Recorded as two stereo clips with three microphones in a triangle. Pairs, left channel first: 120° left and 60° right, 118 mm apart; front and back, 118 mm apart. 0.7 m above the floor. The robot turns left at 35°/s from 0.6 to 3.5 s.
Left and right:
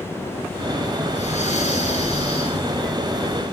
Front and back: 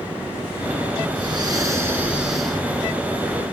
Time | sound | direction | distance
1.1 | breathing | 135° left | 9.5 m